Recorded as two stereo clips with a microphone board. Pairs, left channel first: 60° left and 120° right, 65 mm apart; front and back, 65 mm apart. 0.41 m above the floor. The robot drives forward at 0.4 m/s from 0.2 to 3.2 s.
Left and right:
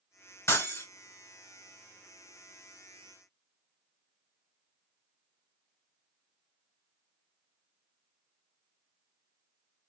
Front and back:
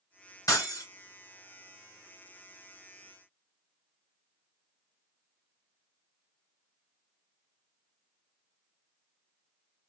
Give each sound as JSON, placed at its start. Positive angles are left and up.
{"t": 0.5, "sound": "breaking glass", "azimuth_deg": 20, "distance_m": 2.0}